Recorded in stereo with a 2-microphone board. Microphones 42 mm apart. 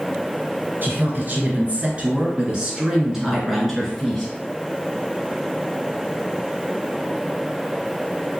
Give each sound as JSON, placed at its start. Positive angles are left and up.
{"t": 0.8, "sound": "a woman speaking", "side_deg": -45, "distance_m": 1.5}